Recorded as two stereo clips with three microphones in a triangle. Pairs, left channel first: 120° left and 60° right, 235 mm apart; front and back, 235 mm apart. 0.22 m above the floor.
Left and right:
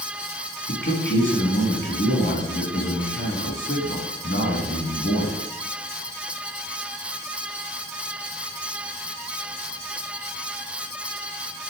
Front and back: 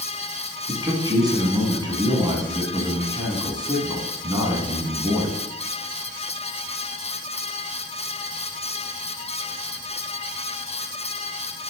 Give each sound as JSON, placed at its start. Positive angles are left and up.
{"t": 0.7, "sound": "a man speaking", "azimuth_deg": 110, "distance_m": 1.7}